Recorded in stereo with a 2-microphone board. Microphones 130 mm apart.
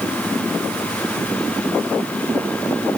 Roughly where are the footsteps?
No footsteps in this recording.